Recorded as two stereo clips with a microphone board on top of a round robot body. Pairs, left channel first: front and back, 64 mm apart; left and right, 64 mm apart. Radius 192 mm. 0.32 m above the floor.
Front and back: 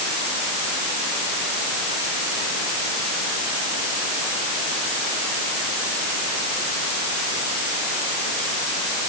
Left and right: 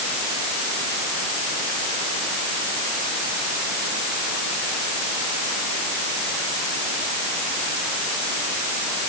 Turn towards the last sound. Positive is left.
No sound to turn to.